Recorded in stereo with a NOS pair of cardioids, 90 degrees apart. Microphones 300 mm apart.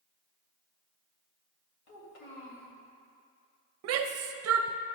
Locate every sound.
1.9 s a child speaking: 60° left, 3 m
3.8 s a shout: 55° right, 0.6 m